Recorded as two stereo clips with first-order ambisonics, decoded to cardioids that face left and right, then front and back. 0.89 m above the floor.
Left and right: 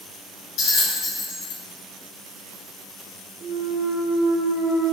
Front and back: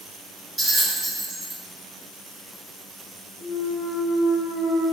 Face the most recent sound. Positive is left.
turn(degrees=-30)